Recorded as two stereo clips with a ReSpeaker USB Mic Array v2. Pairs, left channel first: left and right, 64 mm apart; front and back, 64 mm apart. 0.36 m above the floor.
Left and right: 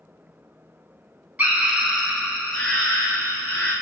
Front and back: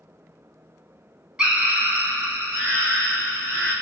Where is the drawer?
I don't hear a drawer.